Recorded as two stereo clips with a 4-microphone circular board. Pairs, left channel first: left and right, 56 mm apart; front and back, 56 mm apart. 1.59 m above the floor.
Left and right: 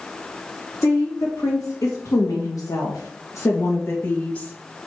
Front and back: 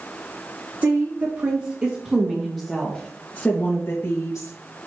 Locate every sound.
0.8 s a woman speaking: 135° left, 3.5 m; by 4.5 s 20° left, 2.5 m